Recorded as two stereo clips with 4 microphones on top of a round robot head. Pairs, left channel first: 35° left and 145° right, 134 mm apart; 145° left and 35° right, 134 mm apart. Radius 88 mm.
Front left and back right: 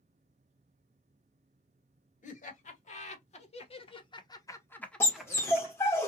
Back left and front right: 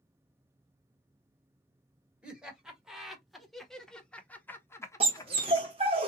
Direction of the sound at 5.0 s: 25° right.